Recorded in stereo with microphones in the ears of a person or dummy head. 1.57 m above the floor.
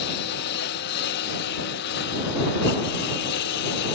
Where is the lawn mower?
55° left (ahead or behind); by 4.0 s 60° left (ahead or behind).